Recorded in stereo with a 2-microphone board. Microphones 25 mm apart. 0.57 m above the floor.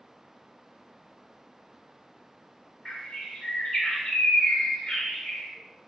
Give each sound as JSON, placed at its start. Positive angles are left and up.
{"t": 2.9, "sound": "a bird", "side_deg": 30, "distance_m": 1.4}